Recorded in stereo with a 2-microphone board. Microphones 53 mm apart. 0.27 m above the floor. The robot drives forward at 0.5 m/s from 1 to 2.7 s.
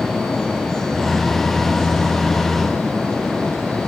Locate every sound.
Only background noise.